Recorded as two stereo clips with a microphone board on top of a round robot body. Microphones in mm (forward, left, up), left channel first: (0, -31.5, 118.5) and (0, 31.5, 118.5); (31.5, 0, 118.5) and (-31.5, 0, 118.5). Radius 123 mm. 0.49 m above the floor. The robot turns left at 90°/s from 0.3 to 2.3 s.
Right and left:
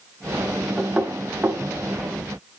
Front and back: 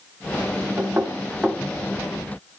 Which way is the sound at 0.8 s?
170° left.